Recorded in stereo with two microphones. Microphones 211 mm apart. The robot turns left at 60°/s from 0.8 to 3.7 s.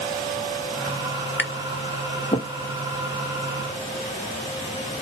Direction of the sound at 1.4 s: 75° left (ahead or behind).